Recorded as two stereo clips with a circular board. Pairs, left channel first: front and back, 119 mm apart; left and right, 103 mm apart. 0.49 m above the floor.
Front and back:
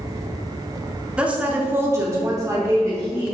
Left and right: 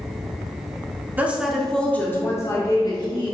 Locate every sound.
1.2 s a woman speaking: 120° right, 0.7 m; by 3.3 s 125° left, 1.2 m